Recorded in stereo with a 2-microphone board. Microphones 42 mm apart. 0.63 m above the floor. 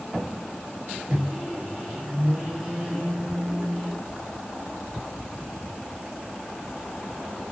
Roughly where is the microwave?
Centre.